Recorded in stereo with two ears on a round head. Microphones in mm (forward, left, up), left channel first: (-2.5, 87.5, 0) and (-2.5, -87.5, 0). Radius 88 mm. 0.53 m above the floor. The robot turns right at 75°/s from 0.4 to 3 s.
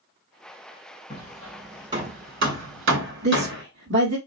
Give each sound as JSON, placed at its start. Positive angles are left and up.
{"t": 1.1, "sound": "hammering", "side_deg": 35, "distance_m": 1.9}
{"t": 3.2, "sound": "a woman speaking", "side_deg": -60, "distance_m": 1.5}